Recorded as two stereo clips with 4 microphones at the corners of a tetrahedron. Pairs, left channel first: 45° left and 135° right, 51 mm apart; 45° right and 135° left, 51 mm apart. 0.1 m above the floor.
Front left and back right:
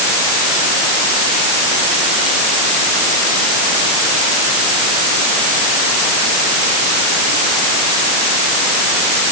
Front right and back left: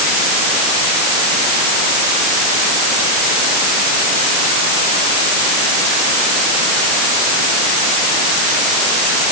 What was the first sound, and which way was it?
Only background noise.